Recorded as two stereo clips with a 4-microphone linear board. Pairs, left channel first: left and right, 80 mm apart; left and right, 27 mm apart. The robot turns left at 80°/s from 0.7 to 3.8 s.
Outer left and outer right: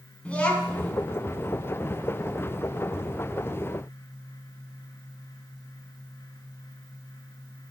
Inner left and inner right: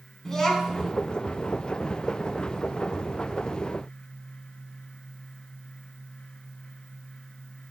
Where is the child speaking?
15° left (ahead or behind), 1.0 m; by 0.9 s 30° left (ahead or behind), 1.0 m.